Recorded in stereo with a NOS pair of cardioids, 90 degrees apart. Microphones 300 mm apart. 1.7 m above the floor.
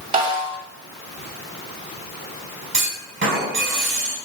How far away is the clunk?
About 4.5 m.